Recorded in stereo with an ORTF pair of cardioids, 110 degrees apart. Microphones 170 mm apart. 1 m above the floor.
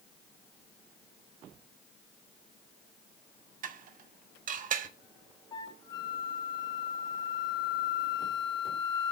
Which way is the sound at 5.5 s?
25° left.